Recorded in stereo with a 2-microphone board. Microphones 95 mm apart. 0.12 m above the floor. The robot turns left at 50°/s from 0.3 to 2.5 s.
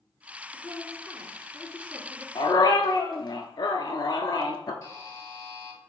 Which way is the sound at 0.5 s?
30° left.